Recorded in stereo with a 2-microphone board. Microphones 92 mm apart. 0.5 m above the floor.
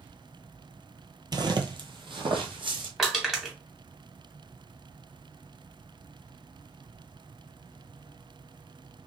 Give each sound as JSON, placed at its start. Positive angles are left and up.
{"t": 1.3, "sound": "footsteps", "side_deg": -45, "distance_m": 0.6}
{"t": 3.0, "sound": "crushing", "side_deg": 0, "distance_m": 1.2}